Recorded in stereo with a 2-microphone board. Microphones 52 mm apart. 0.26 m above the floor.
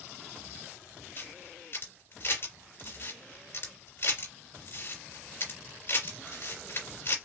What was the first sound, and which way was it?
A camera shutter, 45° left (ahead or behind).